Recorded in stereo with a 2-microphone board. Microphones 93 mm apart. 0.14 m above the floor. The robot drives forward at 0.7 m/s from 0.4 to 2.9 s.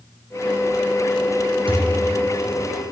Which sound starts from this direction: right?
A thud, at 1.7 s.